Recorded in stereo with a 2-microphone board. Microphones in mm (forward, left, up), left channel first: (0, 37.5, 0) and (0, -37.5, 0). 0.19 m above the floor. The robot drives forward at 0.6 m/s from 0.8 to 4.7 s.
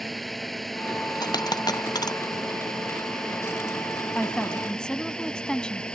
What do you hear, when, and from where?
0.0 s a drone: centre (ahead or behind); by 6.0 s 10° left (ahead or behind)
1.2 s a dropped coin: 60° left (ahead or behind)
4.2 s a woman speaking: 10° left (ahead or behind)